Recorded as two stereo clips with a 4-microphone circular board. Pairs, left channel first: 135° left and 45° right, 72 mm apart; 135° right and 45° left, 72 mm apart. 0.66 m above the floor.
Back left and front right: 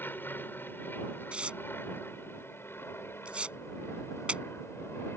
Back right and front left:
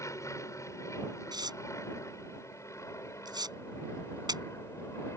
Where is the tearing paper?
30° left.